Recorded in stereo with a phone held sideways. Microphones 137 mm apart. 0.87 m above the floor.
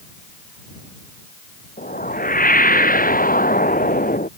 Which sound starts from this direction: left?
A whoosh, at 1.8 s.